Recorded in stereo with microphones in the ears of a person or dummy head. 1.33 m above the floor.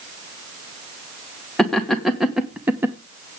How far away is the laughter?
About 1.7 m.